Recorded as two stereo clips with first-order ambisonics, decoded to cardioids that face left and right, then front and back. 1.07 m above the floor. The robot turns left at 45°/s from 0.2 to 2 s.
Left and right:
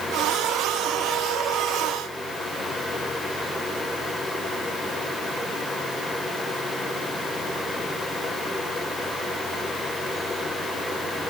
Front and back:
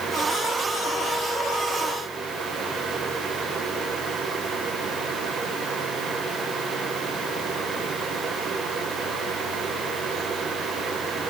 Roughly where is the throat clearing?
No throat clearing in this recording.